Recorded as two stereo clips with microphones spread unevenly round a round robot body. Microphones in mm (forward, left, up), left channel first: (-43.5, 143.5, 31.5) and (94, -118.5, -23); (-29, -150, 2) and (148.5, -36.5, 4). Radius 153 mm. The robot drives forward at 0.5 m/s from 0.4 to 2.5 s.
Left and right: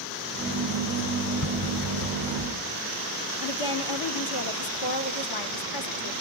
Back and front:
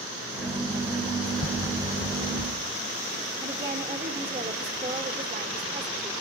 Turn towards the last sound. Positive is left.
turn(degrees=110)